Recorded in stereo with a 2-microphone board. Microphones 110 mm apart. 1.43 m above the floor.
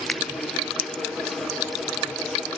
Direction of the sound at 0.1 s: 5° left (ahead or behind).